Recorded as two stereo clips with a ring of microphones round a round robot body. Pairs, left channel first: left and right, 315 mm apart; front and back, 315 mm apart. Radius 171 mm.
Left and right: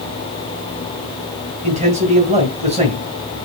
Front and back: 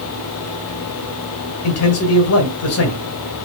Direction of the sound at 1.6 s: 25° right.